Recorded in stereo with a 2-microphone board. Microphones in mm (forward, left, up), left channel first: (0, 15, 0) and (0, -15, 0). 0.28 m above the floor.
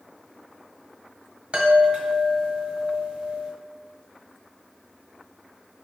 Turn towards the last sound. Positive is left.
turn(degrees=-40)  # may be behind; listen again after turning